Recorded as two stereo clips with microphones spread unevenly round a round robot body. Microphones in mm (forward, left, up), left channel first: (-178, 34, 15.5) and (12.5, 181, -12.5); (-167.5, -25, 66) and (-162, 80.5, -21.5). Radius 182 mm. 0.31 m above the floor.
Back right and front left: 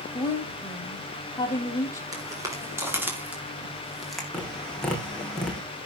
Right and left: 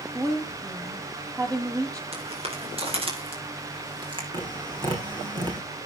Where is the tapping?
130° left, 6.5 m.